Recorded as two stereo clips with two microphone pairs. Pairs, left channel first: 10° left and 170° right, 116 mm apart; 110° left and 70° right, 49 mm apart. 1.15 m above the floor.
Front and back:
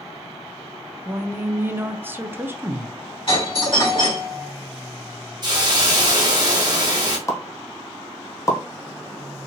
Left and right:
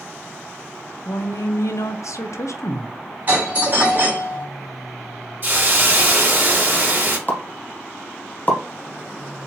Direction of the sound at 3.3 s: 20° right.